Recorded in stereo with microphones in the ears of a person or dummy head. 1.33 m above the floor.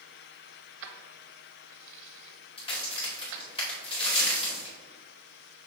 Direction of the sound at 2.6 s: 40° left (ahead or behind).